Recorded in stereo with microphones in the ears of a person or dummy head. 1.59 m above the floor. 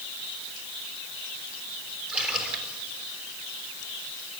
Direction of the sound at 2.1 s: 5° right (ahead or behind).